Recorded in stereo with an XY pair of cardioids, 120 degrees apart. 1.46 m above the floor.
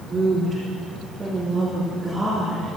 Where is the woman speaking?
30° right, 3.5 m; by 2.7 s 5° right, 4 m.